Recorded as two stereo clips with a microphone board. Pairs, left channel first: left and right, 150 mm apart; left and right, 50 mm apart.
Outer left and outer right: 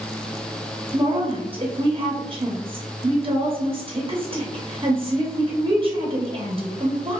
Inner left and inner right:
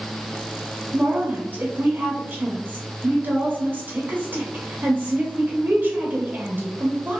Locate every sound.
0.9 s a woman speaking: 35° right (ahead or behind), 0.6 m